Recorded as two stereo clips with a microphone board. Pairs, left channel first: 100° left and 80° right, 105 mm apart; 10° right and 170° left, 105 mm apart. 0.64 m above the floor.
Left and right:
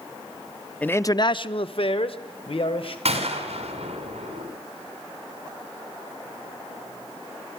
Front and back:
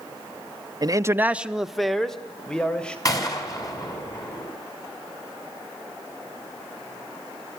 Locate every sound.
0.8 s a man speaking: 170° left, 0.6 m; by 3.0 s 70° left, 2.5 m
3.0 s a gunshot: 65° right, 4 m